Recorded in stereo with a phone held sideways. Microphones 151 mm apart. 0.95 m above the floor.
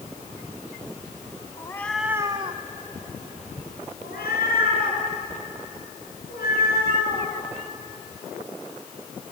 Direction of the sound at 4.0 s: 85° left.